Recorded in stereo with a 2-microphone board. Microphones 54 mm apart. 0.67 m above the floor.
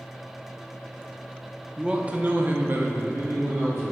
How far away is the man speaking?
About 0.7 m.